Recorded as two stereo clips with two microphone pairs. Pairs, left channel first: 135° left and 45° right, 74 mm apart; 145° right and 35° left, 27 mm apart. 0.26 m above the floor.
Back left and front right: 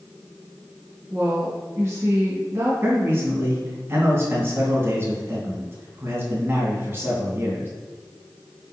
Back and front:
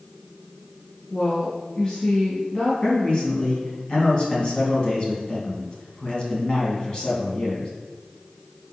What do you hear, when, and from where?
1.1 s a woman speaking: 90° right, 2.5 m
2.8 s a man speaking: 95° right, 2.5 m